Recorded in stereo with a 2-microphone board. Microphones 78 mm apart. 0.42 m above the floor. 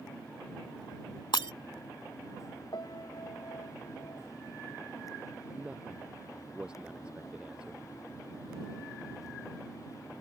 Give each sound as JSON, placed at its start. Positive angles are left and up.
{"t": 1.3, "sound": "breaking glass", "side_deg": 75}
{"t": 2.7, "sound": "a piano", "side_deg": 65}
{"t": 5.5, "sound": "a man speaking", "side_deg": -15}